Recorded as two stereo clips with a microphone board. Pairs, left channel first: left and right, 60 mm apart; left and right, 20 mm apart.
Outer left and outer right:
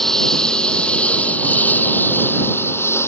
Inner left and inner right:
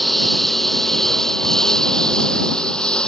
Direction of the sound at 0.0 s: 5° left (ahead or behind).